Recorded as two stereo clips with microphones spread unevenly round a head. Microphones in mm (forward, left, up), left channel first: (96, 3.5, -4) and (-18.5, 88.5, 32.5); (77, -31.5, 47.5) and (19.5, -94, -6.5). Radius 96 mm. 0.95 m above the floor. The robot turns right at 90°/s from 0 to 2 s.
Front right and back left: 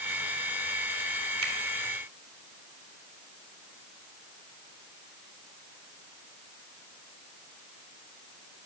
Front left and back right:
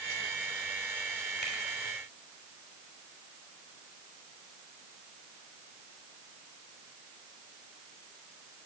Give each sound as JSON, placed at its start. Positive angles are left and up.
{"t": 1.4, "sound": "a finger snap", "azimuth_deg": 140, "distance_m": 2.5}